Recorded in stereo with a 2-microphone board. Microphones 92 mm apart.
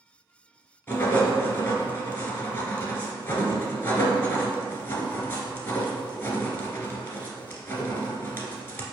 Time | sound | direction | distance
0.9 | writing | 30° left (ahead or behind) | 0.8 m